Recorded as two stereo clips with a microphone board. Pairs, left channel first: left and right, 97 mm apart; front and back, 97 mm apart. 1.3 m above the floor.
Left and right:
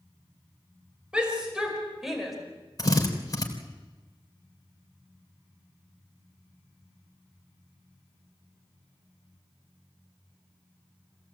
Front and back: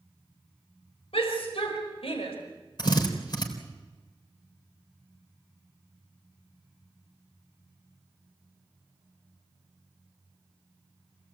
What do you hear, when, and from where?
1.1 s a shout: 10° right, 5.5 m; by 2.4 s straight ahead, 5 m
2.8 s a drill: 40° left, 3.5 m